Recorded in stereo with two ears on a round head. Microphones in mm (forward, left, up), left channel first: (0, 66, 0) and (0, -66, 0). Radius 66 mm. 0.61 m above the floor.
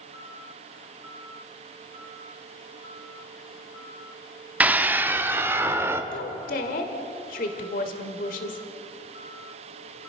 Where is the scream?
10° right (ahead or behind), 0.9 m; by 6.0 s 20° right (ahead or behind), 1.7 m.